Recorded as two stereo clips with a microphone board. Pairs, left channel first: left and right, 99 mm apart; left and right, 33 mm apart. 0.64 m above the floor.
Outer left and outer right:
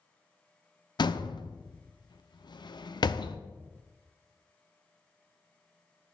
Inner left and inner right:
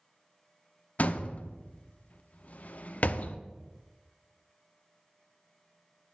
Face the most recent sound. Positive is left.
turn(degrees=55)  # may be behind; listen again after turning